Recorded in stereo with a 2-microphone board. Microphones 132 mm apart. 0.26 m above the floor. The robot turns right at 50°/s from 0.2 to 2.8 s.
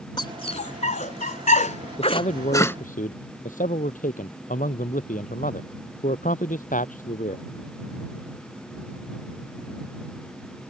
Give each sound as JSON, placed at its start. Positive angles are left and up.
{"t": 0.2, "sound": "a dog barking", "side_deg": 35}
{"t": 2.0, "sound": "a man speaking", "side_deg": 50}